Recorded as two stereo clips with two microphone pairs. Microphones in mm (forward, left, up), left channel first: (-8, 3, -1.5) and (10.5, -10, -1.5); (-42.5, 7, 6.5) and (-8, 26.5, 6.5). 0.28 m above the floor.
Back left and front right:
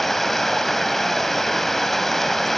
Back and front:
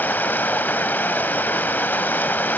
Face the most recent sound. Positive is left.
turn(degrees=-135)